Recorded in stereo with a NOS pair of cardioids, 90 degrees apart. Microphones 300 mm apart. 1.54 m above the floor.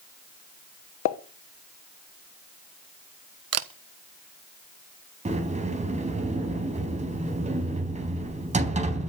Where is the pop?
70° left, 1.3 m.